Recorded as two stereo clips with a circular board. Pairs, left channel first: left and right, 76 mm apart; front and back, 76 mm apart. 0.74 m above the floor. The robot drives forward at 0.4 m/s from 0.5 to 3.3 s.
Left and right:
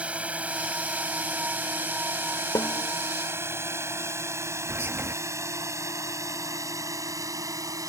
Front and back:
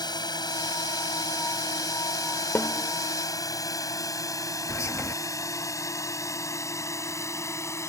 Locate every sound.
0.0 s a drone: 15° right; by 7.9 s 50° right
2.5 s a snare drum: 60° left; by 2.9 s 65° left
4.7 s whispering: 40° right